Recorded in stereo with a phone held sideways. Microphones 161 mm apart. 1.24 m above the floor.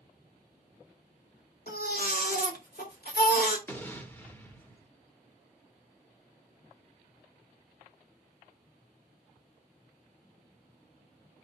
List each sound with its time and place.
1.7 s a baby crying: 75° left (ahead or behind), 2.5 m
3.7 s an explosion: 10° left (ahead or behind), 1.1 m